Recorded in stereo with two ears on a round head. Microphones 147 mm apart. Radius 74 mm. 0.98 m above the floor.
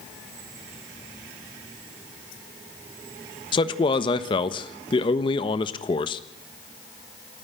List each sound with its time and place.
3.5 s a man speaking: 30° left (ahead or behind), 1.2 m